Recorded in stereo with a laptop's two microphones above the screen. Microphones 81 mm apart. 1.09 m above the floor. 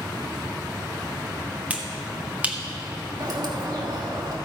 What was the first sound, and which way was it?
A finger snap, 15° right (ahead or behind).